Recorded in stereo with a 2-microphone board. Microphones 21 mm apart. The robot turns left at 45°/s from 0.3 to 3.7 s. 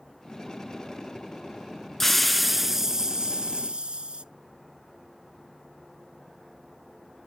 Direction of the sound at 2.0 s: 15° left.